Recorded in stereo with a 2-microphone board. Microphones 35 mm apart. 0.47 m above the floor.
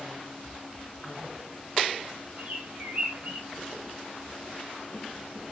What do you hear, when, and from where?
2.4 s a bird: 60° right (ahead or behind), 1.7 m